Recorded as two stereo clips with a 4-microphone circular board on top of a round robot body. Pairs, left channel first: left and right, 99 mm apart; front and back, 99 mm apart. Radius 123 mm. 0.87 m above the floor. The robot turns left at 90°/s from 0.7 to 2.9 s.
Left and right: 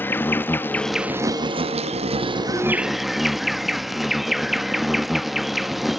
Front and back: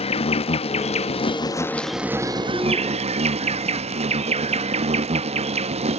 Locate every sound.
0.0 s an insect: 20° left; by 6.0 s straight behind